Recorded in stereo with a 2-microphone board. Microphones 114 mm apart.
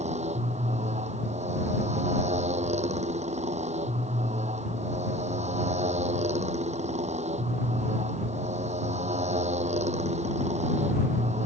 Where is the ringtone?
No ringtone in this recording.